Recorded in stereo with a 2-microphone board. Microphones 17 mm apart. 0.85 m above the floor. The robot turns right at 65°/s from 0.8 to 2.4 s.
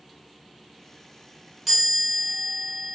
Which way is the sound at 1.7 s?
10° right.